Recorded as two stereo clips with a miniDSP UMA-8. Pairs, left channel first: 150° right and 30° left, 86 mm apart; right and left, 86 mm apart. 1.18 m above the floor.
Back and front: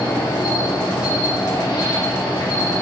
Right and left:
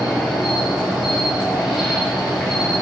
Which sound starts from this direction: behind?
An insect, at 0.0 s.